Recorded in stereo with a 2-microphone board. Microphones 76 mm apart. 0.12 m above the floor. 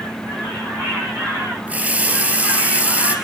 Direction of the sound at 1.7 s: 20° right (ahead or behind).